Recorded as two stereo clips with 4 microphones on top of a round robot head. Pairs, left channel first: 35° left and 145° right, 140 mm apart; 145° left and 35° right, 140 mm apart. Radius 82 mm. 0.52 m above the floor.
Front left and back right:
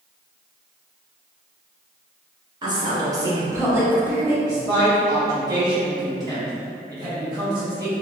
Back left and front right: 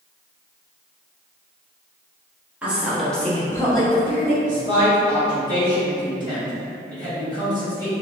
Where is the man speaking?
90° right, 1.5 m.